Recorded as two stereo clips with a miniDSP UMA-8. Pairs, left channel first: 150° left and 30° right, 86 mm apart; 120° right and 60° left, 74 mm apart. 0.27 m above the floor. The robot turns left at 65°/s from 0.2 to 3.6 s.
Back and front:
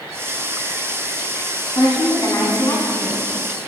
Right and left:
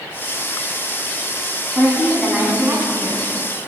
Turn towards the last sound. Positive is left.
turn(degrees=55)